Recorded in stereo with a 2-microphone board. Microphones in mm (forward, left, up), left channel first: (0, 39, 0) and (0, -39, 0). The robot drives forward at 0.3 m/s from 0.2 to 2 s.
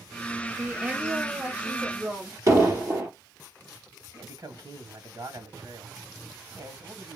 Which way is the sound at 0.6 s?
20° right (ahead or behind).